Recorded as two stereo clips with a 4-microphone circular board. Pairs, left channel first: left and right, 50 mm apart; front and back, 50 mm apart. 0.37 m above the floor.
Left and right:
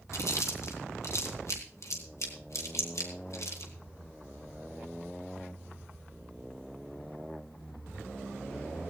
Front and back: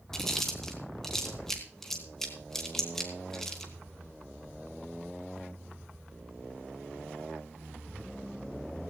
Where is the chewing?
85° left, 3 m.